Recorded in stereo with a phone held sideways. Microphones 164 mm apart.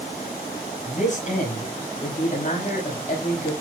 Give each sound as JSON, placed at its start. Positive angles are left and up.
{"t": 0.8, "sound": "a man speaking", "side_deg": 50, "distance_m": 5.5}